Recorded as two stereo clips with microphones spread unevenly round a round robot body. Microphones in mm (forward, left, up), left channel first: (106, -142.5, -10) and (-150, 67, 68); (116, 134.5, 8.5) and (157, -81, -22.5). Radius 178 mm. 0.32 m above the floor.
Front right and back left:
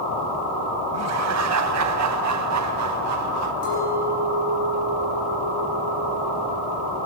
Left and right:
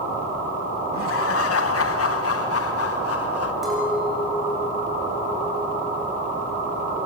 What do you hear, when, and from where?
0.9 s laughter: 90° left, 2 m
3.6 s a clink: 10° left, 9.5 m